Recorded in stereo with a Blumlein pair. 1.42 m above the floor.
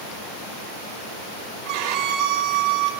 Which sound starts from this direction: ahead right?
A violin, at 1.6 s.